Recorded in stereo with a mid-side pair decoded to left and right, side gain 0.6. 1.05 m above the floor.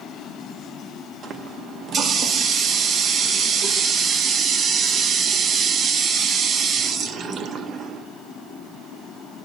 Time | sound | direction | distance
1.2 | a running tap | 45° right | 0.8 m